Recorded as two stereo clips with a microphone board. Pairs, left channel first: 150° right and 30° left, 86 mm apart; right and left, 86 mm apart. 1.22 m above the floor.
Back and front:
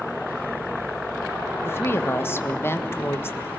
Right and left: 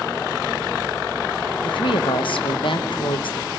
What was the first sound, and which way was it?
A woman speaking, 90° right.